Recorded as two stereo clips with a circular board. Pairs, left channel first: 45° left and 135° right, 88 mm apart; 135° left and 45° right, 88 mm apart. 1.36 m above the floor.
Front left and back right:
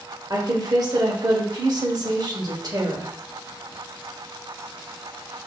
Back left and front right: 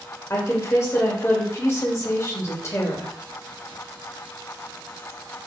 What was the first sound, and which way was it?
A woman speaking, 170° right.